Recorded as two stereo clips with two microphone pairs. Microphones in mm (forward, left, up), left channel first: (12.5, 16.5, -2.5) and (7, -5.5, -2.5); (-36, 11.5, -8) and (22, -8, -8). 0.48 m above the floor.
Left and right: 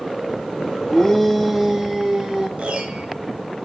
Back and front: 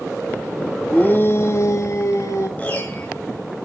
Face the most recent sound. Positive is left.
turn(degrees=-135)